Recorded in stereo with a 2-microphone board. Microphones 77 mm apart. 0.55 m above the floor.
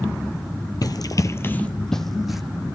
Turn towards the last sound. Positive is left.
turn(degrees=-5)  # may be behind; listen again after turning